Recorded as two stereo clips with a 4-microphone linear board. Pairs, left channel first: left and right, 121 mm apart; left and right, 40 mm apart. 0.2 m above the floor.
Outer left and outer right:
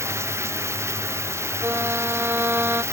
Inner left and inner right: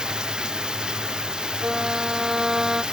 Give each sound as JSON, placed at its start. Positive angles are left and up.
{"t": 0.0, "sound": "running water", "side_deg": -20}
{"t": 1.6, "sound": "a violin", "side_deg": -20}